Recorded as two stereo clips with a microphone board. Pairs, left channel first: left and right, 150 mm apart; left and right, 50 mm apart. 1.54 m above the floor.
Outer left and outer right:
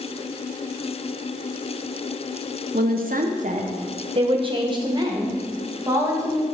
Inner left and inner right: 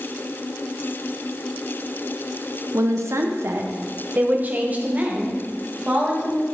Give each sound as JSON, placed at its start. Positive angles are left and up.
{"t": 2.7, "sound": "a woman speaking", "side_deg": -80, "distance_m": 0.7}